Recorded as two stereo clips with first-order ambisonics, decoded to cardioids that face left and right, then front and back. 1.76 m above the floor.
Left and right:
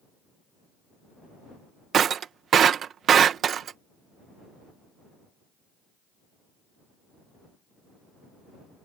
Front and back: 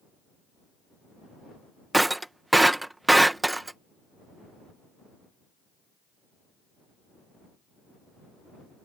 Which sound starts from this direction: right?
Breaking glass, at 1.9 s.